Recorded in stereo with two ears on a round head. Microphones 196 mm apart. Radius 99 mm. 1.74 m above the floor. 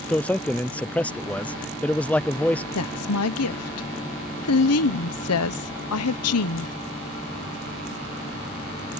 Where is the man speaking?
5° left (ahead or behind).